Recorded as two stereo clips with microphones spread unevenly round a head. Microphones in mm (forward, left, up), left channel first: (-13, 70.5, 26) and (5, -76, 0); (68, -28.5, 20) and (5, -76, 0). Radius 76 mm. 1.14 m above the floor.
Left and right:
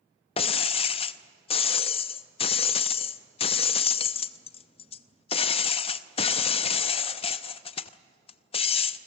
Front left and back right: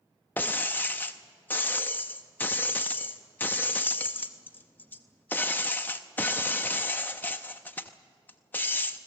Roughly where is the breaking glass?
Left.